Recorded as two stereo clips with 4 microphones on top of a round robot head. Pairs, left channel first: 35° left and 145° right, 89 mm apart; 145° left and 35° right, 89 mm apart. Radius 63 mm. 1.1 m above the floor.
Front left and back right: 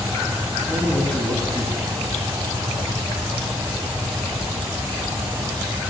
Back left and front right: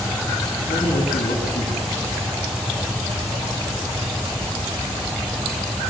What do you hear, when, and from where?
0.7 s a man speaking: 120° left, 9.5 m